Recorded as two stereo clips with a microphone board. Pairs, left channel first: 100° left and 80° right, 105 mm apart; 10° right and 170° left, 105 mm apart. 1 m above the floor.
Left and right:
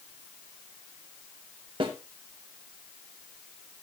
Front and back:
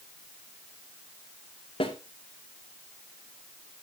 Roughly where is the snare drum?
Ahead right.